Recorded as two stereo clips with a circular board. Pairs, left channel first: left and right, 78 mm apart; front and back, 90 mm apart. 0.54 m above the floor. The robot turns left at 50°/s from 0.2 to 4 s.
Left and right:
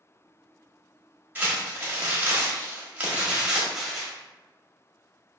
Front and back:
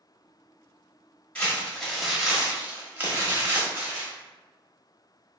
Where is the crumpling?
55° right, 1.2 m; by 4.1 s 170° left, 1.2 m.